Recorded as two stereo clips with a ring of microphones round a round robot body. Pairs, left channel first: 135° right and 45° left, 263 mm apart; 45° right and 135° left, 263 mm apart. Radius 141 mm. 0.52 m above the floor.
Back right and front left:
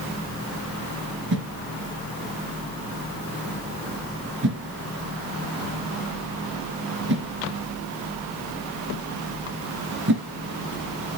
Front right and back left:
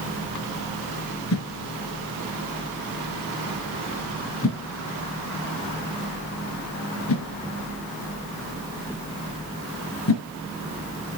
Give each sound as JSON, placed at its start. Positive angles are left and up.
{"t": 1.3, "sound": "a whoosh", "azimuth_deg": -5, "distance_m": 1.8}